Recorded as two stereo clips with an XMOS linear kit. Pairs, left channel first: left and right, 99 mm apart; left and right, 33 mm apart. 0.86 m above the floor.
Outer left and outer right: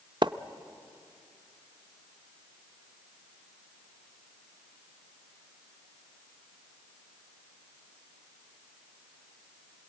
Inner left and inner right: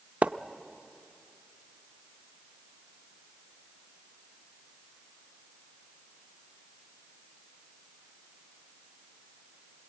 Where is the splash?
50° right (ahead or behind), 0.6 m.